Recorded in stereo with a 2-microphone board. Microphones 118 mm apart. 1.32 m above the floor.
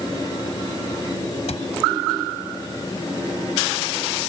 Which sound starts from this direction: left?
A cupboard door, at 1.5 s.